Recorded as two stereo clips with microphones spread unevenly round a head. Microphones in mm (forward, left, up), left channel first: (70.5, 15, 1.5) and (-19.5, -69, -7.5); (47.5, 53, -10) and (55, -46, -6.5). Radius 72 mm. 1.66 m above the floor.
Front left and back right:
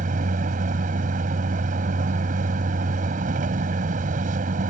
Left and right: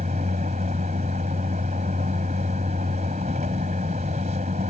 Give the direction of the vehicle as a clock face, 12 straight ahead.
4 o'clock.